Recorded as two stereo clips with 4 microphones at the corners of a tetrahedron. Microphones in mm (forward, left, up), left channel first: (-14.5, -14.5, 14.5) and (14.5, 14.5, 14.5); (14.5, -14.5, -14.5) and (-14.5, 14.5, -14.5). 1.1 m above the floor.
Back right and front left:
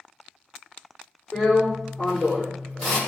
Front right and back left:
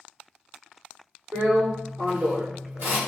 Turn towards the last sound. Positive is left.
turn(degrees=140)